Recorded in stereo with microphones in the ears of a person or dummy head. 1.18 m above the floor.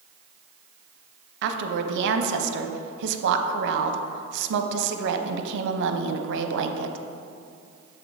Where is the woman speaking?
65° right (ahead or behind), 0.7 m.